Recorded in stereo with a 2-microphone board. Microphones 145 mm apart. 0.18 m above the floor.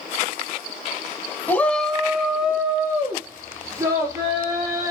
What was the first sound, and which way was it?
A shout, 15° left (ahead or behind).